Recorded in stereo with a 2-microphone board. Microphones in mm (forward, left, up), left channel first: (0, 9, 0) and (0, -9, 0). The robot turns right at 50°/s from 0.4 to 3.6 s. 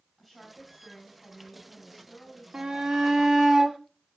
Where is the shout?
115° right, 1.8 m; by 3.8 s 65° right, 1.8 m.